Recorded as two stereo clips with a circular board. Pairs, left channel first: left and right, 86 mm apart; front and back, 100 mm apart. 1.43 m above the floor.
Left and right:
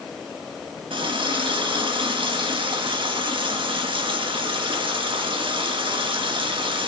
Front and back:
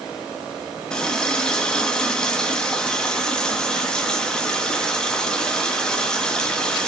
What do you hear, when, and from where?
0.9 s a running tap: 85° right, 1.5 m